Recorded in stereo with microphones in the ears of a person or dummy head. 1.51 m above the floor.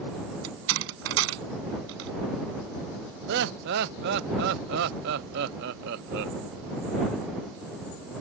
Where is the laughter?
65° right (ahead or behind).